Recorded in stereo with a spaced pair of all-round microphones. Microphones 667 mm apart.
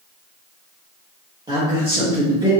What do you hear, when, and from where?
1.5 s a man speaking: 10° right (ahead or behind), 0.8 m